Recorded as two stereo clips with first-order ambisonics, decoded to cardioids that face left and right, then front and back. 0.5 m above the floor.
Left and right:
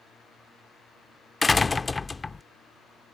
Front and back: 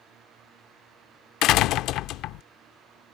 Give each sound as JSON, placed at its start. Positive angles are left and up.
{"t": 1.4, "sound": "a door slam", "azimuth_deg": 20}